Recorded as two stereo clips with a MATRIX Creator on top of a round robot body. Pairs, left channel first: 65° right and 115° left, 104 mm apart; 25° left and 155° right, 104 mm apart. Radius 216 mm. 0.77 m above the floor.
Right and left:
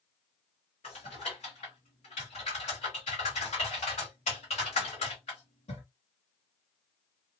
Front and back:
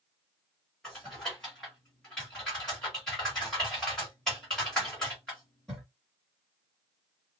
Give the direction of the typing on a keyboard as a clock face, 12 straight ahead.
2 o'clock.